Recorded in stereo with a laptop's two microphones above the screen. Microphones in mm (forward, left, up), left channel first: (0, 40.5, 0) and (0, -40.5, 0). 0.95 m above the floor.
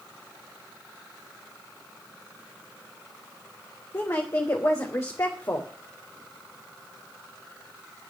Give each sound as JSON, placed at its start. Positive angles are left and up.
{"t": 3.9, "sound": "a woman speaking", "side_deg": 35, "distance_m": 3.0}